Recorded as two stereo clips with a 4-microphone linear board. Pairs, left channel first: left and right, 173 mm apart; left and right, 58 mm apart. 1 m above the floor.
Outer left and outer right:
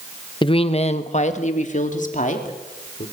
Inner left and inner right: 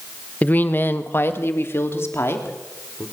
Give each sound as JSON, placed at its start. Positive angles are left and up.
{"t": 0.4, "sound": "a woman speaking", "side_deg": 30, "distance_m": 0.8}